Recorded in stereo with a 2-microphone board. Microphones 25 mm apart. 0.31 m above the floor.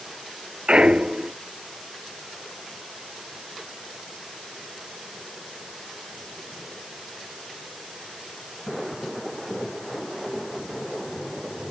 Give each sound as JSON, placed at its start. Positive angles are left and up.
{"t": 0.7, "sound": "a clunk", "side_deg": -35}